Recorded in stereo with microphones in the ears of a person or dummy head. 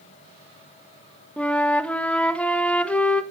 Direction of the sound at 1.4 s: 5° left (ahead or behind).